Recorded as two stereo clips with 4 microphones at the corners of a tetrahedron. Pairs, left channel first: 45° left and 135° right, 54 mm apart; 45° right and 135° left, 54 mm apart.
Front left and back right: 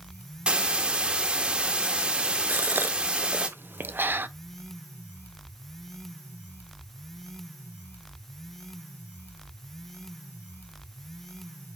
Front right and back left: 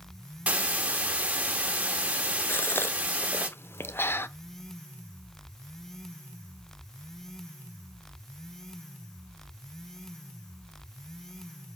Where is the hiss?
175° left, 1.3 m.